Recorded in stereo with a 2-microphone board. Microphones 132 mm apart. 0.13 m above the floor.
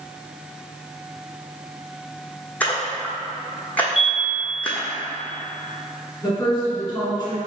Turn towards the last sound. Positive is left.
turn(degrees=20)  # may be behind; listen again after turning